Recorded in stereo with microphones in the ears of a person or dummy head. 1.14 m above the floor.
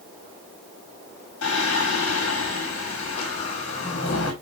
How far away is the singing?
About 1.4 m.